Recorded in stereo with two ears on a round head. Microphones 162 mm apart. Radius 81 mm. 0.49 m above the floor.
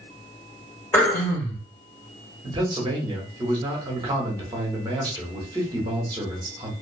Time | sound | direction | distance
0.9 | throat clearing | 15° left (ahead or behind) | 1.2 m
2.4 | a man speaking | 25° right (ahead or behind) | 1.0 m